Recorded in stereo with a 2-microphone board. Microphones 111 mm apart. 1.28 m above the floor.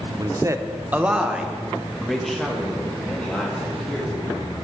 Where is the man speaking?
40° right (ahead or behind), 0.6 m; by 4.4 s 10° left (ahead or behind), 2.5 m.